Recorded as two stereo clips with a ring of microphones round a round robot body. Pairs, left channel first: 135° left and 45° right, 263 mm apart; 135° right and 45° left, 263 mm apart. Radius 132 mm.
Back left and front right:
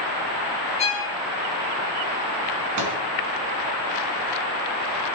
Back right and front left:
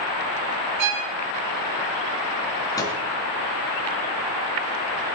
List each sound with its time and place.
0.8 s a violin: 70° left, 3.5 m
2.8 s a microwave: 60° right, 3 m